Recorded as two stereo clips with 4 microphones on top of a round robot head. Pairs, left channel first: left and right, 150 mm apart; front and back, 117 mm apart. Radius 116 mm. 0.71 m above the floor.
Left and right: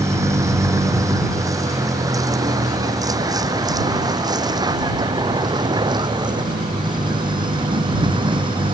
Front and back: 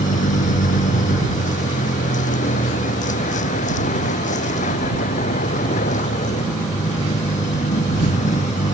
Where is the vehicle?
20° right; by 8.8 s 35° right.